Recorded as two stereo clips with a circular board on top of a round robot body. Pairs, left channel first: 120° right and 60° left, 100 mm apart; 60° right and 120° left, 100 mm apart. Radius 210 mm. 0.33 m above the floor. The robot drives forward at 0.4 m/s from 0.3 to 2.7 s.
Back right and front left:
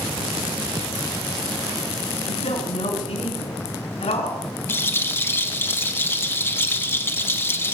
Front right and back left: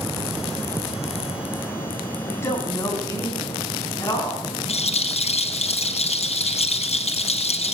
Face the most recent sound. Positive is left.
turn(degrees=-50)